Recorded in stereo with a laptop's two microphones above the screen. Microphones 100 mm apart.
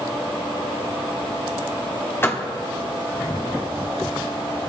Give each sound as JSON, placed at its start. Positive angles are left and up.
{"t": 2.2, "sound": "a door slam", "side_deg": 20, "distance_m": 1.3}